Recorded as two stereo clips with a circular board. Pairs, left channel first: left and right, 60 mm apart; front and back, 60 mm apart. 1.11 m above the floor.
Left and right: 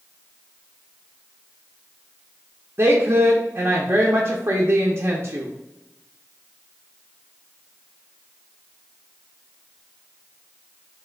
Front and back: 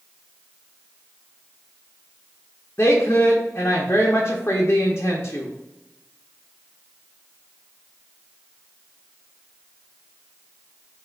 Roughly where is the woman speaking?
Ahead right.